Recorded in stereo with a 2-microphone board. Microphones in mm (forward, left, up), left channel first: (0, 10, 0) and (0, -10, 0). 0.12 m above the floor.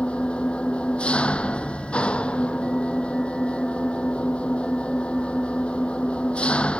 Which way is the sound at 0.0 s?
70° left (ahead or behind).